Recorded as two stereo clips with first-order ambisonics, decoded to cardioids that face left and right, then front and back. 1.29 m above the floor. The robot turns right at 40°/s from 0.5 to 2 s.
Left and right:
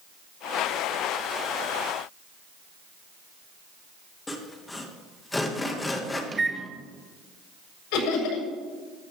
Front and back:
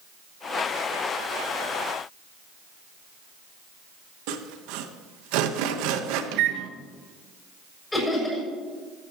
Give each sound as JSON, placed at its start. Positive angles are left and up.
{"t": 4.3, "sound": "sawing", "azimuth_deg": 170, "distance_m": 1.2}
{"t": 6.3, "sound": "a microwave", "azimuth_deg": -165, "distance_m": 1.0}
{"t": 7.9, "sound": "laughter", "azimuth_deg": 85, "distance_m": 6.5}